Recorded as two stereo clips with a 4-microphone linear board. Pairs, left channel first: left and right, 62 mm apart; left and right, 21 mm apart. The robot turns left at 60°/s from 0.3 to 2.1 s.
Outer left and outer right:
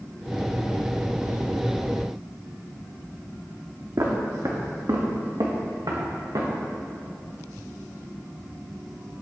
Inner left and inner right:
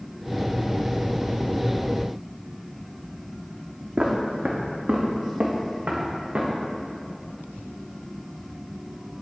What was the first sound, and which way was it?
Footsteps, 60° right (ahead or behind).